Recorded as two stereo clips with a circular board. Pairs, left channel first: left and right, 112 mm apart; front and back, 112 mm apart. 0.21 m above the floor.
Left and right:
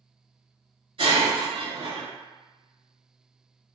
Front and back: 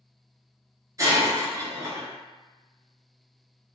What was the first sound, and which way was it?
Breaking glass, 120° right.